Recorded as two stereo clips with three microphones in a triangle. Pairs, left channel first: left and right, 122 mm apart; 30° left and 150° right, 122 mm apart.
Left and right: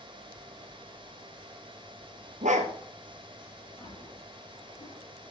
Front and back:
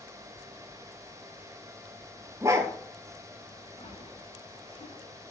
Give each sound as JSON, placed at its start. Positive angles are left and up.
{"t": 2.4, "sound": "a dog barking", "azimuth_deg": -85, "distance_m": 2.0}
{"t": 3.8, "sound": "a splash", "azimuth_deg": 50, "distance_m": 8.5}